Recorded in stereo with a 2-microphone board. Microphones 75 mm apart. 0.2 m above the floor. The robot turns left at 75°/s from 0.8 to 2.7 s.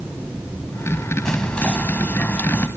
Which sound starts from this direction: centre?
Whispering, at 1.2 s.